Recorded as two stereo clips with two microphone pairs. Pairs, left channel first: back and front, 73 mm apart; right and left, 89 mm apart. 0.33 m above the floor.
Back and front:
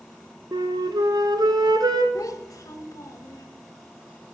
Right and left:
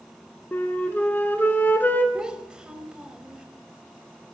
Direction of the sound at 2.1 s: 170° left.